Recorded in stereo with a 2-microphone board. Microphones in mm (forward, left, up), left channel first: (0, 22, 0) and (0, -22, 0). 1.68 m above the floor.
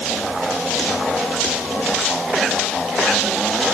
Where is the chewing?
No chewing in this recording.